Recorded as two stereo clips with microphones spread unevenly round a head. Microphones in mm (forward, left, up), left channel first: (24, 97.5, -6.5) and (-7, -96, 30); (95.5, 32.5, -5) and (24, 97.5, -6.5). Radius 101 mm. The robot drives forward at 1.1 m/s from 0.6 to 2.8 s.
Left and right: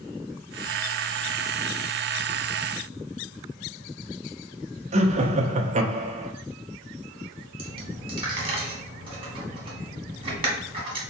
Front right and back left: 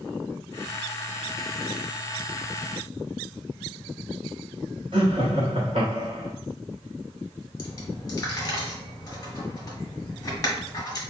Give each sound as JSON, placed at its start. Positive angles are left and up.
{"t": 4.9, "sound": "laughter", "azimuth_deg": -160, "distance_m": 0.6}
{"t": 7.6, "sound": "a dropped coin", "azimuth_deg": -70, "distance_m": 1.1}